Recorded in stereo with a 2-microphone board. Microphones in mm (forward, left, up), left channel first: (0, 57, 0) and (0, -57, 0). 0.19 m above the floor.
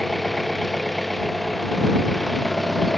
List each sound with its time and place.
0.0 s an engine running: centre (ahead or behind)